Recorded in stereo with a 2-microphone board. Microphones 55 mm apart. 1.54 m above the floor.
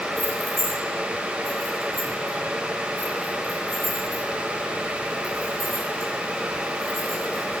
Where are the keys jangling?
15° left (ahead or behind), 4 m; by 7.6 s 30° left (ahead or behind), 9 m.